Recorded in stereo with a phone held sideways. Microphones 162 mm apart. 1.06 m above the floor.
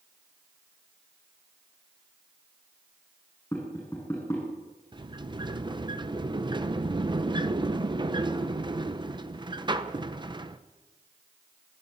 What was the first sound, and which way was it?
Tapping, 15° left (ahead or behind).